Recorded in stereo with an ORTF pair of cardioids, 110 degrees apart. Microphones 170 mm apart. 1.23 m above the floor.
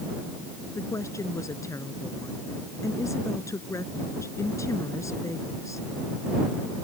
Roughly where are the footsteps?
I don't hear footsteps.